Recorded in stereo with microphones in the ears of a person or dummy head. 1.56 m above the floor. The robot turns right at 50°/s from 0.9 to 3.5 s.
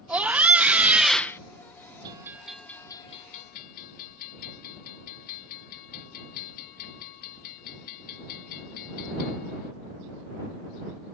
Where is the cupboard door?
No cupboard door in this recording.